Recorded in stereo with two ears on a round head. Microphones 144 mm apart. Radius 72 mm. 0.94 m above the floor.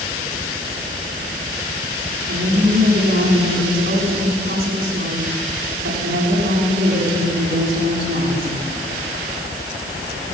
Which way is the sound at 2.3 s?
80° right.